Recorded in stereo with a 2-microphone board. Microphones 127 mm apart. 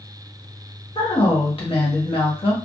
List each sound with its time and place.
0.9 s a woman speaking: 50° left (ahead or behind), 1.0 m